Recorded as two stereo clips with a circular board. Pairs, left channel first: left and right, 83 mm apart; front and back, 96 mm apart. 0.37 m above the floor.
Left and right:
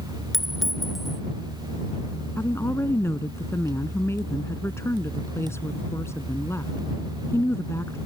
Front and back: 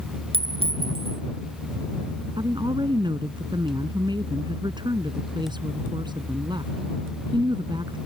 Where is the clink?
Straight behind.